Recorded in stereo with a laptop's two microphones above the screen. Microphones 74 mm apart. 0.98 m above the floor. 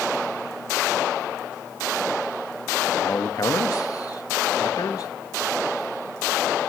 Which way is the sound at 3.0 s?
50° left (ahead or behind).